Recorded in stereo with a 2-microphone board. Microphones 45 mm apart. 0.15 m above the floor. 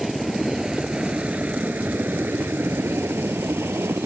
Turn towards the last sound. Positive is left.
turn(degrees=-60)  # may be behind; listen again after turning